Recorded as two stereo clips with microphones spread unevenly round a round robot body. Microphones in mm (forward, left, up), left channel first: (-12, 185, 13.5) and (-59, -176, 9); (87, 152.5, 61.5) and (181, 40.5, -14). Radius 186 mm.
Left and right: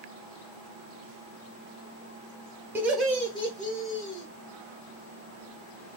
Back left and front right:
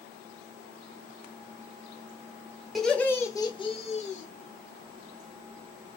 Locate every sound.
2.8 s laughter: 20° right, 1.1 m; by 4.3 s 80° left, 1.2 m